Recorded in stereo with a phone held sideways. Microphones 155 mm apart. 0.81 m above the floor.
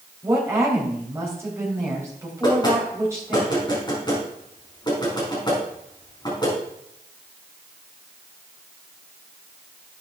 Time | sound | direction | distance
0.2 | a woman speaking | 20° right (ahead or behind) | 3.5 m
2.4 | knocking | 25° left (ahead or behind) | 5 m